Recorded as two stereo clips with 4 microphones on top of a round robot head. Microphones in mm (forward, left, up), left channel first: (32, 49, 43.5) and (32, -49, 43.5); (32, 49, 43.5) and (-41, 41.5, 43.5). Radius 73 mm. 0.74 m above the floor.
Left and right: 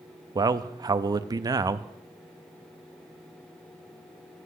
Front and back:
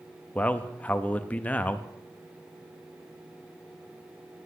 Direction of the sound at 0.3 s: 60° right.